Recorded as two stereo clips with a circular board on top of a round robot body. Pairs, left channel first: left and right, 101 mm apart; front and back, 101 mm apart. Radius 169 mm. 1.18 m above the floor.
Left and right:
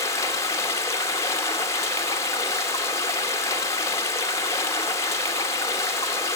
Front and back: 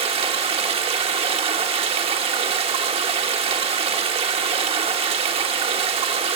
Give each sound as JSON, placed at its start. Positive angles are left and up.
{"t": 0.0, "sound": "running water", "azimuth_deg": 150, "distance_m": 1.1}